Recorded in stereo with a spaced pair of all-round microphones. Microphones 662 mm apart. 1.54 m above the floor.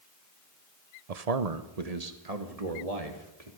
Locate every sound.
1.1 s a man speaking: 70° right (ahead or behind), 0.9 m; by 3.5 s 65° right (ahead or behind), 3 m